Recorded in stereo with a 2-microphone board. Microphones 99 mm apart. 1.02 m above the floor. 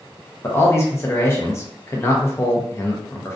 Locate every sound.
0.4 s a man speaking: 25° left (ahead or behind), 0.7 m